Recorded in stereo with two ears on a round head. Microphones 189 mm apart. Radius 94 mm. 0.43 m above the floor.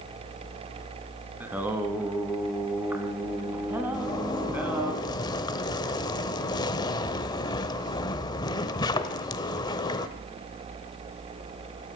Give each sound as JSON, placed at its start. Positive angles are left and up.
{"t": 1.4, "sound": "singing", "side_deg": -10, "distance_m": 1.5}
{"t": 3.9, "sound": "a zipper", "side_deg": 20, "distance_m": 0.8}